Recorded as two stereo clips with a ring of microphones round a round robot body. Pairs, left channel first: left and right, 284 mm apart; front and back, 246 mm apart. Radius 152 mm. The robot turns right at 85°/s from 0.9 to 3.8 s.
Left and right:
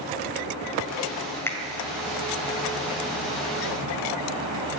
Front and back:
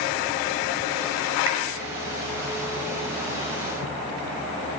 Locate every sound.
1.5 s a finger snap: 170° left, 1.9 m; by 1.6 s straight behind, 1.9 m